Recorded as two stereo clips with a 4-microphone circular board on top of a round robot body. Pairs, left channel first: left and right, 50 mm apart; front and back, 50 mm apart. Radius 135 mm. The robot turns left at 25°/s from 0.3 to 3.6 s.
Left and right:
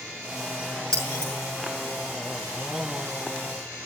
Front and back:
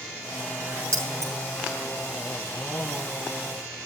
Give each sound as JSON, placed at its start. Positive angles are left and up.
{"t": 0.9, "sound": "keys jangling", "azimuth_deg": 160, "distance_m": 6.5}